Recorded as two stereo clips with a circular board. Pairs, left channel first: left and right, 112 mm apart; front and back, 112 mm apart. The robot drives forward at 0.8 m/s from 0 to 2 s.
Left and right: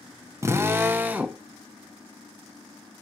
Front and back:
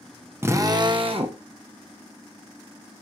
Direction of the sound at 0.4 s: 125° right.